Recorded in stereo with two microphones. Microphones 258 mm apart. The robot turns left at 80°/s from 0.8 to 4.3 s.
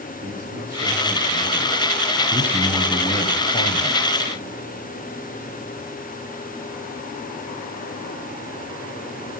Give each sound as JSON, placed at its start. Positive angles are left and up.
{"t": 0.2, "sound": "a man speaking", "azimuth_deg": -150, "distance_m": 5.5}
{"t": 2.3, "sound": "a man speaking", "azimuth_deg": -150, "distance_m": 1.5}